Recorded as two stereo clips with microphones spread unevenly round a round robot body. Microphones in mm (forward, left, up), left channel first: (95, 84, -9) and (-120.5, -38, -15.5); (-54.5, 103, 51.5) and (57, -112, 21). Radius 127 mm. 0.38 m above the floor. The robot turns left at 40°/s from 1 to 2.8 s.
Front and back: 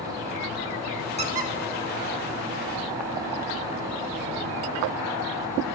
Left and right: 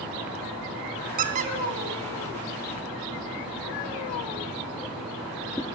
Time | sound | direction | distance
1.2 | a squeak | 95° right | 0.6 m